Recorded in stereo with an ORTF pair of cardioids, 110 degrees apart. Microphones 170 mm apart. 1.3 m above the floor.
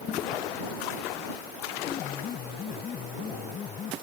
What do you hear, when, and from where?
1.9 s a piano: 45° left